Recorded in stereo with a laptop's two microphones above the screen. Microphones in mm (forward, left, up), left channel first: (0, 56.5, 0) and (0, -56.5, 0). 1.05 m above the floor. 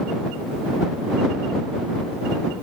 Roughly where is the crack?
No crack in this recording.